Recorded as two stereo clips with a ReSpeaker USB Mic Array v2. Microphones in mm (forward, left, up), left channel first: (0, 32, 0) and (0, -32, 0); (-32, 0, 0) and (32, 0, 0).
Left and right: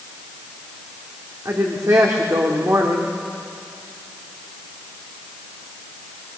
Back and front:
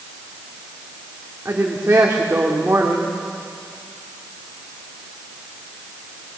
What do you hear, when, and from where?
1.4 s a woman speaking: 55° right, 2 m